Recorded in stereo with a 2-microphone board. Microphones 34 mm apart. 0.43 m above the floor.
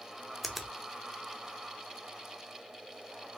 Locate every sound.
0.4 s a finger snap: centre (ahead or behind), 0.6 m